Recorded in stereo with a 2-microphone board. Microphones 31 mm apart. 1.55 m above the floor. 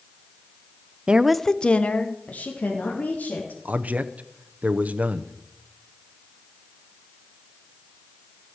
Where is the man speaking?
60° right (ahead or behind), 0.9 m.